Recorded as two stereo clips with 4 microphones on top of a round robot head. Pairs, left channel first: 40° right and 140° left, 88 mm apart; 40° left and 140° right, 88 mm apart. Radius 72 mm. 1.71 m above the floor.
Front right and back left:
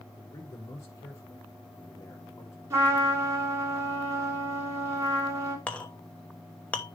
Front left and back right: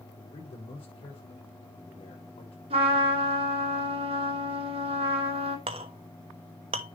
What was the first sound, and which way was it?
A man speaking, 20° left.